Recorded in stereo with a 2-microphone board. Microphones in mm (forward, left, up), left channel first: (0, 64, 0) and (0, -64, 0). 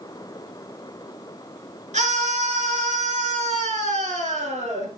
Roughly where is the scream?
Right.